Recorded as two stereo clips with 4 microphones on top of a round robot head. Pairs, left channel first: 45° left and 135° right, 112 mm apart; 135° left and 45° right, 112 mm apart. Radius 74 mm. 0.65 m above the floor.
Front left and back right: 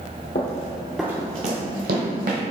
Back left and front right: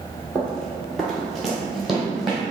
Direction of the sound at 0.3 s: 50° left.